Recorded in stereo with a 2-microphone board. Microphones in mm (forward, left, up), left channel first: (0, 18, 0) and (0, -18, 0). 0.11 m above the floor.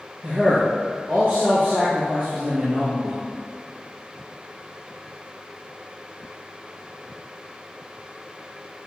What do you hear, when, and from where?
0.2 s a man speaking: 55° right (ahead or behind), 2.5 m